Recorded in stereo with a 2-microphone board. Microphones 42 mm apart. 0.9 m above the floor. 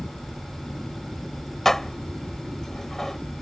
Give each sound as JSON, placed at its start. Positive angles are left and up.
{"t": 1.6, "sound": "dishes clattering", "side_deg": 10}